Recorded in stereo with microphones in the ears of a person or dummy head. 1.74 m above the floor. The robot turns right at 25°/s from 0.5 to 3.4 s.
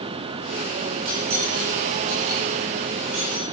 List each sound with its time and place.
1.1 s cutlery clinking: 45° right (ahead or behind), 8 m; by 3.5 s 75° right (ahead or behind), 8 m